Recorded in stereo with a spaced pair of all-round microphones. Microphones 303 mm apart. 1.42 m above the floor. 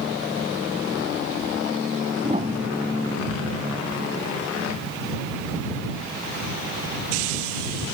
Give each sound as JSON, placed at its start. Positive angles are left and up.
{"t": 2.2, "sound": "a piano", "side_deg": -20}